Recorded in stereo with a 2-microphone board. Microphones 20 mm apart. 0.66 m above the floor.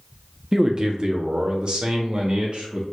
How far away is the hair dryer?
No hair dryer in this recording.